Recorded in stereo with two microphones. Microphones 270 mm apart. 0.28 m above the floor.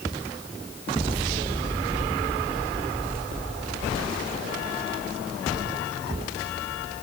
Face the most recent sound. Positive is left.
No sound to turn to.